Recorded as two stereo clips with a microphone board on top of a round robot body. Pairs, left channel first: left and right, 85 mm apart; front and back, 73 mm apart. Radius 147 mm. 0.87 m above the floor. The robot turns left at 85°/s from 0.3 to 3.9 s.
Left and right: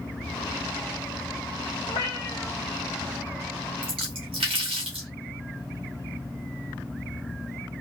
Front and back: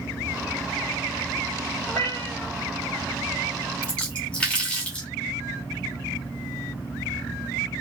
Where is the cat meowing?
75° left, 1.0 m; by 2.5 s 15° left, 1.0 m.